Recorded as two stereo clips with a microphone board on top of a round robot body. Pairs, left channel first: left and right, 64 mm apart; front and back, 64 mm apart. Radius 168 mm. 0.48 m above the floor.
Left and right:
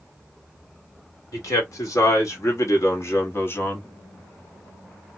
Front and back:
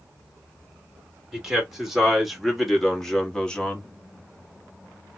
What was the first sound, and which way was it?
A man speaking, 100° left.